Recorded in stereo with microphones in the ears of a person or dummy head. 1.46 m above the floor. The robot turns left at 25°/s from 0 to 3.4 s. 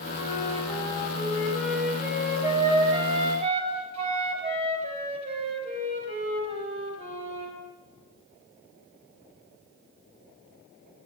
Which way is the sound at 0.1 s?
40° left.